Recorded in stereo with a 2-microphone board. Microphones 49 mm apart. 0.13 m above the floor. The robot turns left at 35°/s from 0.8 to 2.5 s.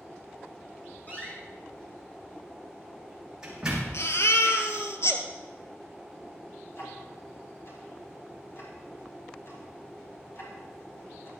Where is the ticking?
60° left (ahead or behind), 4.5 m.